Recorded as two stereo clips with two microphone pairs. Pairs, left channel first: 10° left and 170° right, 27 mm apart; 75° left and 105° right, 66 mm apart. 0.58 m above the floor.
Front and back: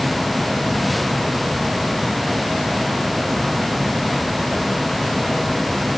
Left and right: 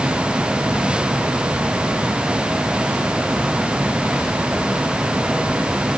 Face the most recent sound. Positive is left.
No sound to turn to.